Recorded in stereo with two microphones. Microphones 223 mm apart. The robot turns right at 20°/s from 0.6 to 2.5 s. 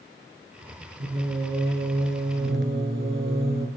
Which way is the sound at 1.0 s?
115° right.